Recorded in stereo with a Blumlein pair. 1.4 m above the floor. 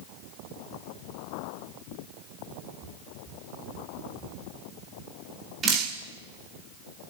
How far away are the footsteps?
About 4.5 m.